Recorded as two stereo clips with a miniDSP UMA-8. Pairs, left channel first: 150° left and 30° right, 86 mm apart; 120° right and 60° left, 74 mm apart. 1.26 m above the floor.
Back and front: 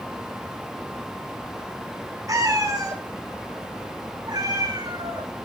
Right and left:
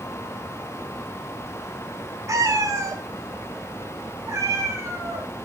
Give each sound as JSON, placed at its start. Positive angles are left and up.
{"t": 2.3, "sound": "a cat meowing", "azimuth_deg": 15, "distance_m": 2.5}